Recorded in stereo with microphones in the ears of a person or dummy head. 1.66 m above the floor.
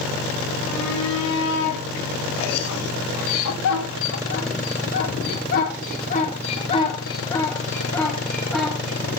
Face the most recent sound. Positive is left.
turn(degrees=-5)  # may be behind; listen again after turning